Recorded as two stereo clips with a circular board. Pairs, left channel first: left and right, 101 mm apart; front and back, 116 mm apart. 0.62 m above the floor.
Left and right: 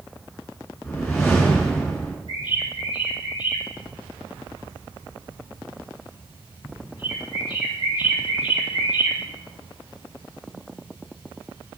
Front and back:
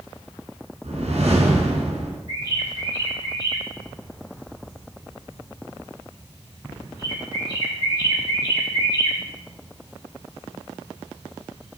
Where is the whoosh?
155° left, 4 m.